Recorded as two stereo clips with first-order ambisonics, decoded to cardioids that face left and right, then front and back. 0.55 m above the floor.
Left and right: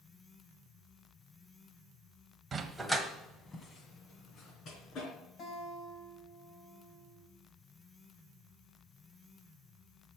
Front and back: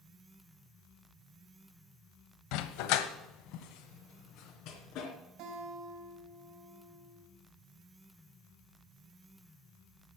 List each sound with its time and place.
2.5 s a dog barking: 20° right, 0.9 m; by 5.1 s 35° left, 2.5 m
5.4 s a guitar: 150° left, 3.5 m